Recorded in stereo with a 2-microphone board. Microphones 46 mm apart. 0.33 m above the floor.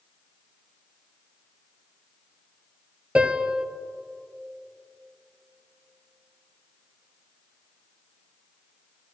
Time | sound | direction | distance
3.1 | a piano | 20° right (ahead or behind) | 1.0 m